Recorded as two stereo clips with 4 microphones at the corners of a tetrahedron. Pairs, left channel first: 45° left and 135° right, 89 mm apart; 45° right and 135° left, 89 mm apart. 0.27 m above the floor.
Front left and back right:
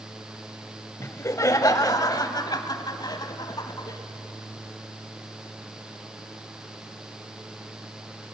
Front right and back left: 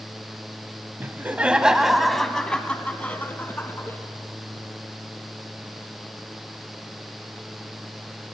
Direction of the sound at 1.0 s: 85° left.